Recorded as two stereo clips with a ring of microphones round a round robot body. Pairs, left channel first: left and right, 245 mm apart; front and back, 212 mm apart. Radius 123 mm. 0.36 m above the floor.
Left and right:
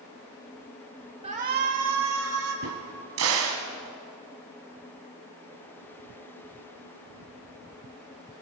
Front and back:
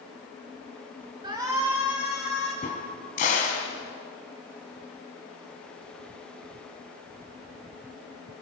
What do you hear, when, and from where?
1.2 s a shout: 130° right, 1.2 m; by 2.5 s 90° right, 2 m
2.6 s a crack: 60° right, 2 m